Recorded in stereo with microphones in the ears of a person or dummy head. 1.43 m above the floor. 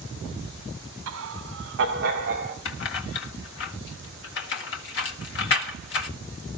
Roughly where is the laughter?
Right.